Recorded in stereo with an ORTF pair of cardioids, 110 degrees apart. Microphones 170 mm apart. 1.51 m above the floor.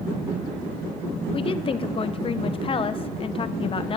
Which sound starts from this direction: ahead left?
A woman speaking, at 1.3 s.